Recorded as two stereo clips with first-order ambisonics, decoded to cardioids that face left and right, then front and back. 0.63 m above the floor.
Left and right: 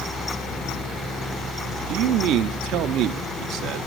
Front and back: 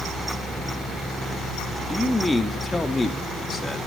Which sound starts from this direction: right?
A man speaking, at 1.9 s.